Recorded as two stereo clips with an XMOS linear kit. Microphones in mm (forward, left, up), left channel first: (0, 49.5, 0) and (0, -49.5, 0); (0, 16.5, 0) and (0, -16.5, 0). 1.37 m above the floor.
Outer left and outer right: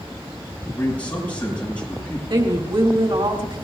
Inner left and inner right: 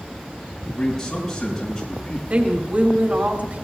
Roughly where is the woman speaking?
Right.